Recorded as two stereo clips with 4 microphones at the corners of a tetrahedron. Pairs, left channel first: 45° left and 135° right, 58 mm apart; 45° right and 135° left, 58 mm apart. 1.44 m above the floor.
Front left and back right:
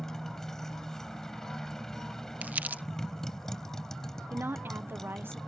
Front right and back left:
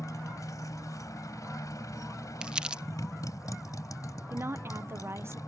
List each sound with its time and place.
0.0 s a motorcycle: 35° right
2.4 s crumpling: 160° right
4.3 s a woman speaking: 175° left